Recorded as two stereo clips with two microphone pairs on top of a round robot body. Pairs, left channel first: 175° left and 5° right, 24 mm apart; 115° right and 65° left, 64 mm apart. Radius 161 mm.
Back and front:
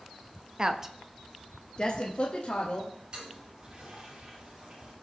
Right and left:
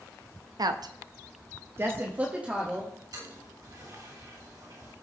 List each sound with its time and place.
0.6 s a woman speaking: 50° left, 1.0 m; by 2.9 s 145° left, 2.0 m
3.1 s a toilet flushing: 50° left, 6.5 m